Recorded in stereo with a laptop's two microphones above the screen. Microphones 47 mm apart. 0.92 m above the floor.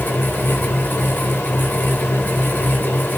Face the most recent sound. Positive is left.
turn(degrees=45)  # may be behind; listen again after turning